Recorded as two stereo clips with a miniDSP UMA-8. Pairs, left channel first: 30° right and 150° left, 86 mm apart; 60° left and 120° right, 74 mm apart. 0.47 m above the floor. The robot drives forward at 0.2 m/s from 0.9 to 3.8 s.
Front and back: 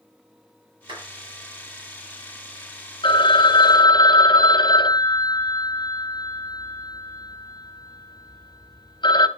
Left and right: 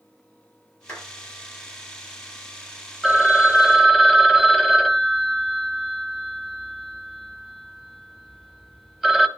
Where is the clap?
130° left, 8 m.